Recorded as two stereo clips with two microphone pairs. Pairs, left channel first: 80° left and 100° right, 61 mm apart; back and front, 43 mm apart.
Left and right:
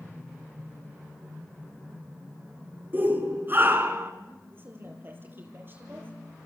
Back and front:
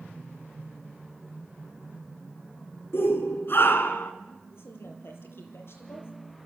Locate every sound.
2.9 s a shout: 160° right, 3.5 m; by 4.1 s 150° right, 2.5 m
4.5 s a woman speaking: 155° right, 6.5 m